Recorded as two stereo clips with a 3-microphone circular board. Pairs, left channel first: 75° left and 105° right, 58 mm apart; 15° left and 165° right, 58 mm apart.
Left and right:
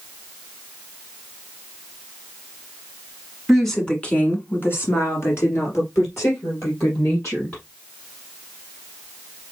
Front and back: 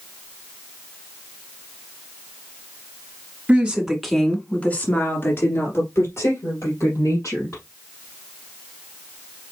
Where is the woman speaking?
165° left, 1.6 m; by 7.6 s 40° left, 5 m.